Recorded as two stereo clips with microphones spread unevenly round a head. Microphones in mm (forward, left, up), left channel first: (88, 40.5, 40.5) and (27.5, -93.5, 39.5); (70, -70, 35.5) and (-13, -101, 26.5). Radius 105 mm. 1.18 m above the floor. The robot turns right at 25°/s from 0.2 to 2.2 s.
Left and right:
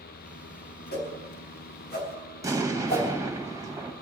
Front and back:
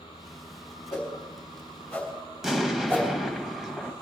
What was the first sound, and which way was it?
A whoosh, 90° left.